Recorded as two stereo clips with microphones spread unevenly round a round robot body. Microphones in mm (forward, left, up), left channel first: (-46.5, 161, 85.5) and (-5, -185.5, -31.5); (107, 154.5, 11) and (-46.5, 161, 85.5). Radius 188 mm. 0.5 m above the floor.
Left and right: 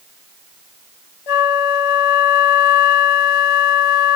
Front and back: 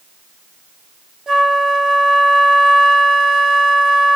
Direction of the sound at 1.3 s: 100° left.